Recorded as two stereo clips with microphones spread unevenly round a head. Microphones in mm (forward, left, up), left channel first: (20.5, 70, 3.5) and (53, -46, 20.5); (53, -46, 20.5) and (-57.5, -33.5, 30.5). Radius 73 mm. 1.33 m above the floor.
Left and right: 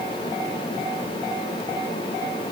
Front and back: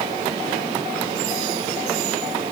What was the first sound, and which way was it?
Only background noise.